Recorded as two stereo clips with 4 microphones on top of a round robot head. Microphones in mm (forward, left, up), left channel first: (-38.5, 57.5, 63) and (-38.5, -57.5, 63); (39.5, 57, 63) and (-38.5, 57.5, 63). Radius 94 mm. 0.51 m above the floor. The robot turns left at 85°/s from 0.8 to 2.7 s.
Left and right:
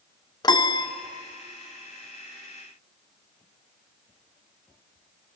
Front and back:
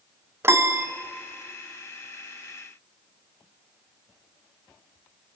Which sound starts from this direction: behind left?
A piano, at 0.4 s.